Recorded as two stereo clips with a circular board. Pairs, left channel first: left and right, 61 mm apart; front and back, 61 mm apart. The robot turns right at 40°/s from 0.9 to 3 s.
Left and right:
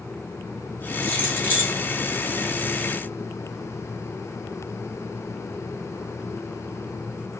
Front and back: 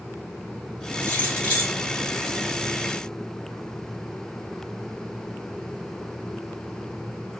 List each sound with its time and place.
1.0 s keys jangling: 45° left, 1.5 m; by 1.8 s 70° left, 1.5 m